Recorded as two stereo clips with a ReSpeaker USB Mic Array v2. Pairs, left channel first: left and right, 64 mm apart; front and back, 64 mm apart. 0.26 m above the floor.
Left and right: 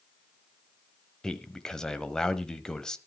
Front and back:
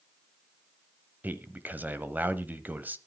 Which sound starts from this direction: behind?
A man speaking, at 1.2 s.